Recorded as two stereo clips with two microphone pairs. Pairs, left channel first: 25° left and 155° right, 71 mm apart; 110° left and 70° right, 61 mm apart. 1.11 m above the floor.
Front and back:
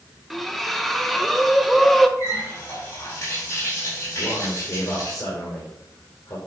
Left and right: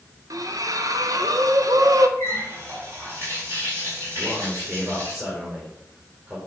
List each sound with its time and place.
0.3 s a splash: 65° right, 0.8 m
2.2 s a running tap: 25° right, 5 m
4.1 s a man speaking: 5° right, 4 m